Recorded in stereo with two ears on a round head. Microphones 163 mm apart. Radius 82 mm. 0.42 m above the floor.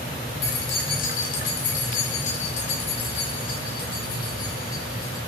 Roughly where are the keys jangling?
Left.